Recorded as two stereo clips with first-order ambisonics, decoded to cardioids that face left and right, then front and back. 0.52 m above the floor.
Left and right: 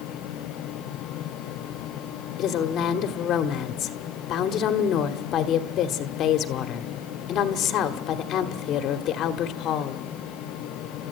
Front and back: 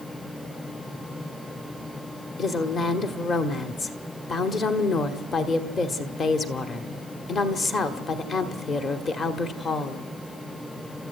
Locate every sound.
2.4 s a woman speaking: 60° left, 1.2 m